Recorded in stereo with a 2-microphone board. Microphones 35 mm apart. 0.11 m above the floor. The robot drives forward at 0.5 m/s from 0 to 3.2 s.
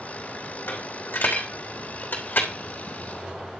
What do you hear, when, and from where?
0.7 s a dropped coin: 80° left, 3.5 m; by 2.5 s 75° left (ahead or behind), 3.5 m